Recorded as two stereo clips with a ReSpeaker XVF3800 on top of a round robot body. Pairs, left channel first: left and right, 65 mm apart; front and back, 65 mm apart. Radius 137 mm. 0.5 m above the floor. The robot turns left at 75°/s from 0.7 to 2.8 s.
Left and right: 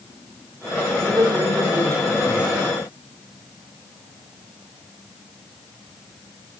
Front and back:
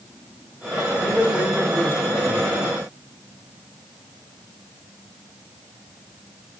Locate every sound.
1.0 s a man speaking: 50° right, 5.5 m; by 2.6 s 170° right, 5.5 m